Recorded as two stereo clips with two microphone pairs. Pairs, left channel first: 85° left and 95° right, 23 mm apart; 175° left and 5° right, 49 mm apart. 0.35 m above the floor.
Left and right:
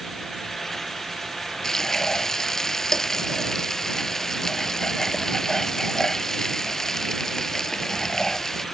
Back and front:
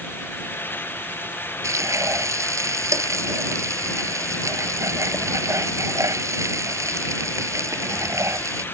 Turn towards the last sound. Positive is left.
turn(degrees=15)